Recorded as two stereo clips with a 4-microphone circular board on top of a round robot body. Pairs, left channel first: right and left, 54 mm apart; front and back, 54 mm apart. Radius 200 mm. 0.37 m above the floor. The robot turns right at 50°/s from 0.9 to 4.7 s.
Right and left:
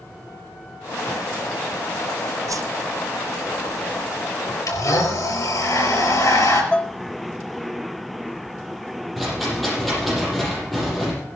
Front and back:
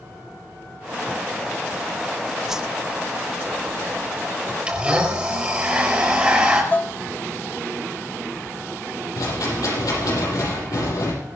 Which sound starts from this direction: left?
A whoosh, at 2.5 s.